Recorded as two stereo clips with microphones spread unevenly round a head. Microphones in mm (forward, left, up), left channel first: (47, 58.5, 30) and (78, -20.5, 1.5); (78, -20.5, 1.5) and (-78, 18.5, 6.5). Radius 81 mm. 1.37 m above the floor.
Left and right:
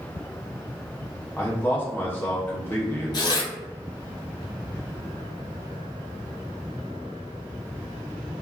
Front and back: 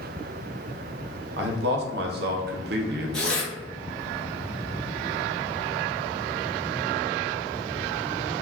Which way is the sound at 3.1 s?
70° left.